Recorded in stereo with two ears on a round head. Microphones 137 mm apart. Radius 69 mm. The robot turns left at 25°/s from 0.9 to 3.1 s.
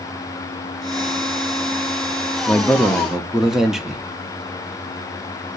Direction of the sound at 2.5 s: 10° left (ahead or behind).